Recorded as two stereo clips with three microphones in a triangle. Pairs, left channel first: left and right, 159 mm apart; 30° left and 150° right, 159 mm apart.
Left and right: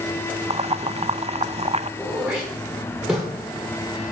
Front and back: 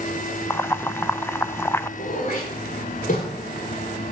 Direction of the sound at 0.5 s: 45° right.